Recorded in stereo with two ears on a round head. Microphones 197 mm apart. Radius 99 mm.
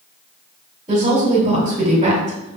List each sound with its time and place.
0.9 s a woman speaking: 25° right (ahead or behind), 2 m